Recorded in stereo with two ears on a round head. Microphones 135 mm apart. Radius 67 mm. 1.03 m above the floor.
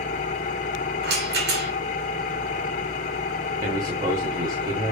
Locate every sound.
0.0 s an engine running: 55° left (ahead or behind), 1.3 m
1.0 s a rattle: 75° right (ahead or behind), 3 m
3.6 s a man speaking: 30° right (ahead or behind), 2.5 m